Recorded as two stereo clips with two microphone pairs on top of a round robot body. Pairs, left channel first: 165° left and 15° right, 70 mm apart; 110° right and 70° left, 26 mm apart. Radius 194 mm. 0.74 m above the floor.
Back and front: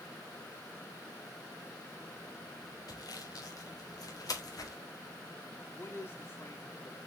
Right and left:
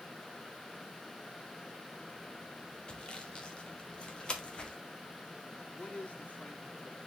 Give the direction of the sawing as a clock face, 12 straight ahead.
5 o'clock.